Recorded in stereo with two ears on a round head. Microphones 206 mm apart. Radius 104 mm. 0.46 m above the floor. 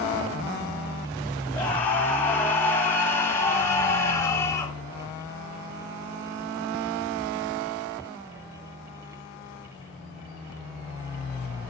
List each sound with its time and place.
1.5 s a scream: 10° left (ahead or behind), 7.5 m; by 4.8 s 15° left (ahead or behind), 5.5 m